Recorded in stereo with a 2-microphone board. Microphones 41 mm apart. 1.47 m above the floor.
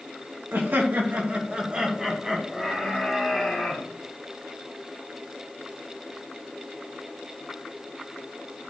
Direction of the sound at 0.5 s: 60° right (ahead or behind).